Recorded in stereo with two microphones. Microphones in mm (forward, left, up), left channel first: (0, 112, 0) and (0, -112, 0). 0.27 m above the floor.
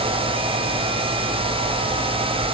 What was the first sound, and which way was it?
Only background noise.